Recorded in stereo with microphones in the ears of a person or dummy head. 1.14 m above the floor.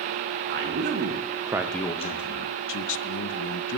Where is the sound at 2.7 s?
60° left (ahead or behind), 0.6 m.